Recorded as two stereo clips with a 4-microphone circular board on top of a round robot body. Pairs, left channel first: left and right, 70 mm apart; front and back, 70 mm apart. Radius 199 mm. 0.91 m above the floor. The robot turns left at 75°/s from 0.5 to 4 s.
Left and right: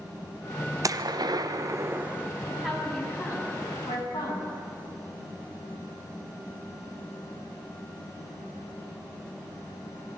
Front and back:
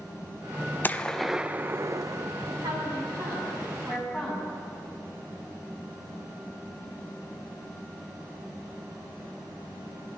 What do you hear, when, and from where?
0.8 s a gunshot: 60° right, 1.0 m; by 2.3 s 170° right, 1.0 m
2.5 s a woman speaking: 155° right, 8.5 m; by 4.5 s 90° left, 8.5 m